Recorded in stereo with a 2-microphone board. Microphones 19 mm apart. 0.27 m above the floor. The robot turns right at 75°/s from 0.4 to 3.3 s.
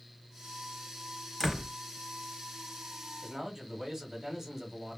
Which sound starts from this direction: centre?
A door slam, at 1.4 s.